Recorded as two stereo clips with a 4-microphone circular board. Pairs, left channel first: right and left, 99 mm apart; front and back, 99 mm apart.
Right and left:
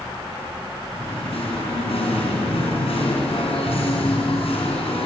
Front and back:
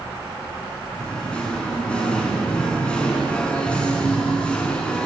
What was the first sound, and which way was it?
Singing, 80° right.